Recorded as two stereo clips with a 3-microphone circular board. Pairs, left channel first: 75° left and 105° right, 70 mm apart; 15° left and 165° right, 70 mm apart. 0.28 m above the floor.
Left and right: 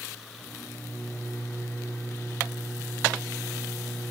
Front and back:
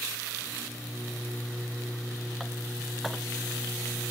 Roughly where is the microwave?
Left.